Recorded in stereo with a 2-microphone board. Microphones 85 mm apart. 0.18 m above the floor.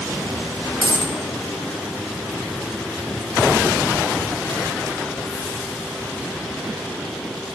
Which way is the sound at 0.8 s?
85° right.